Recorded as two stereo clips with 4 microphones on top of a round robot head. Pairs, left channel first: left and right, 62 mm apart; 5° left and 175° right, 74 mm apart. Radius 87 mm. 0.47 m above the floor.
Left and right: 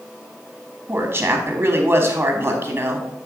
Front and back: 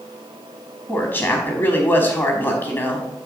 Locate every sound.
0.9 s a woman speaking: 40° right, 1.1 m